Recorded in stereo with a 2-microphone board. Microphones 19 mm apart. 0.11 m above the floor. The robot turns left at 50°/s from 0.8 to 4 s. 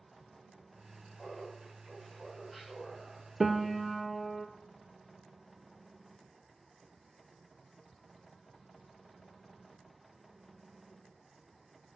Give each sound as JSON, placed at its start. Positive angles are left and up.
{"t": 1.2, "sound": "laughter", "azimuth_deg": 55, "distance_m": 7.0}
{"t": 3.4, "sound": "a piano", "azimuth_deg": -150, "distance_m": 0.9}